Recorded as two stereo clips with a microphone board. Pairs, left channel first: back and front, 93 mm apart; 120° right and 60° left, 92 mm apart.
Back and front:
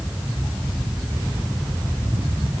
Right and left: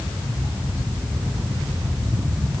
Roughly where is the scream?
I don't hear a scream.